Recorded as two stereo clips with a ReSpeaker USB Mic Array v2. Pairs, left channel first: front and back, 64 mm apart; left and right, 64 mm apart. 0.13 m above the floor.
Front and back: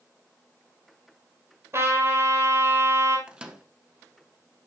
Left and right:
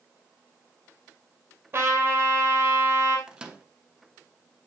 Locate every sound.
1.7 s a trumpet: 140° right, 2 m
3.3 s a microwave: 135° right, 0.9 m